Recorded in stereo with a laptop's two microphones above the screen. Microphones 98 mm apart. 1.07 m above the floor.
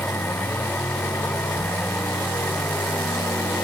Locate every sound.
0.0 s a machine running: 20° left (ahead or behind)